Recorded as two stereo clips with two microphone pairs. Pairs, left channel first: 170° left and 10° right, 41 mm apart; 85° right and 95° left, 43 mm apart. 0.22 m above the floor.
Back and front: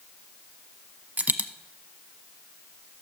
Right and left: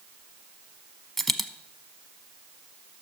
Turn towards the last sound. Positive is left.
turn(degrees=5)